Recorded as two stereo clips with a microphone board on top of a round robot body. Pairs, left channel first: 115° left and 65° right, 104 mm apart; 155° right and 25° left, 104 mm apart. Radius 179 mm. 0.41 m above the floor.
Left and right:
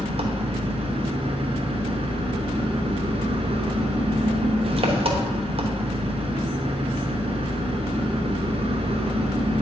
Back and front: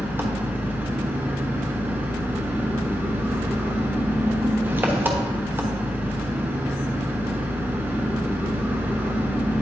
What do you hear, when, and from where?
0.0 s an engine running: 50° right, 1.1 m